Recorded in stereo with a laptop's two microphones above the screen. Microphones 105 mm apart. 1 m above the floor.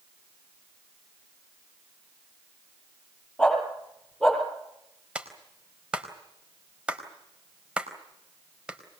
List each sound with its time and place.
3.4 s a dog barking: 5° left (ahead or behind), 9.5 m; by 4.4 s centre (ahead or behind), 9.5 m
5.2 s a clap: 10° right (ahead or behind), 4 m